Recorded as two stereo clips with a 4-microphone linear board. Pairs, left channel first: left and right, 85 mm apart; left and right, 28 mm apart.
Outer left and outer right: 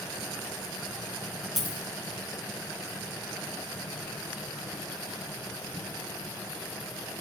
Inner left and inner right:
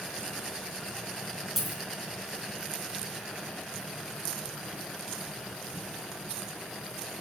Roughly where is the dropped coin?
Centre.